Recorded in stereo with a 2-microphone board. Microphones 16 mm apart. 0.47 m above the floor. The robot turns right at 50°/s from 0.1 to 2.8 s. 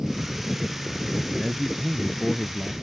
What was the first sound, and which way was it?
A man speaking, 35° right.